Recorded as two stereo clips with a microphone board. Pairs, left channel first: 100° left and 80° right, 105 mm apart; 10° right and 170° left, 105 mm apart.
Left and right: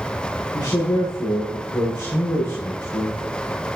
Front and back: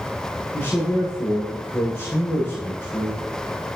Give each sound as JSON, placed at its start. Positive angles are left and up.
{"t": 0.5, "sound": "a man speaking", "azimuth_deg": 55, "distance_m": 7.5}